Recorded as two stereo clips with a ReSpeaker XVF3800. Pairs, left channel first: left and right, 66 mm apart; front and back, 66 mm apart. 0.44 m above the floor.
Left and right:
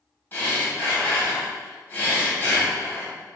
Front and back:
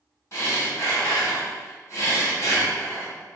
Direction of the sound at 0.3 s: 35° left.